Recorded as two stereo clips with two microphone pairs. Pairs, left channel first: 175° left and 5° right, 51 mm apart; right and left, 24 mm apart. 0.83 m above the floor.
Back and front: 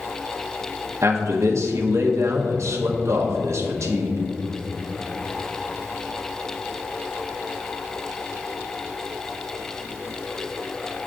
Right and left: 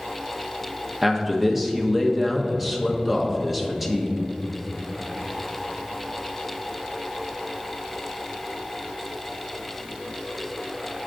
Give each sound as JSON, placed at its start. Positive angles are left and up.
{"t": 1.0, "sound": "a man speaking", "azimuth_deg": 5, "distance_m": 0.8}